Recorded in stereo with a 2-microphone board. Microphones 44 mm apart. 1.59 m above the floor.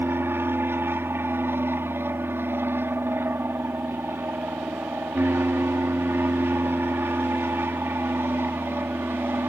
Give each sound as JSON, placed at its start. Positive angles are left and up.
{"t": 0.0, "sound": "an aircraft", "side_deg": -60}